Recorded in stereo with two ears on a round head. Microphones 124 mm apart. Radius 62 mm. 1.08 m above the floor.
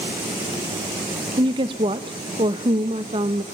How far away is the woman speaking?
About 0.8 m.